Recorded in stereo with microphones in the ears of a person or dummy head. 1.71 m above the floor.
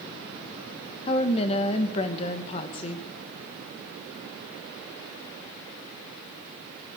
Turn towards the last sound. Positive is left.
turn(degrees=35)  # may be behind; listen again after turning